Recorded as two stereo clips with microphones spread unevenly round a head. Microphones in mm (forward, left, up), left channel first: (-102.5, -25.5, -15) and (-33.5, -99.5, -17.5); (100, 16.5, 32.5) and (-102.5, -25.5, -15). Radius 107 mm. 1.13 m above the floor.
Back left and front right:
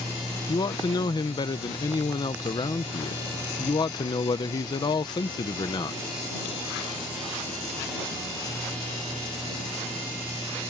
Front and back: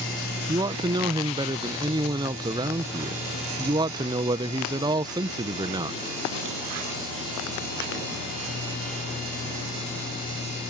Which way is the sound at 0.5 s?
150° left.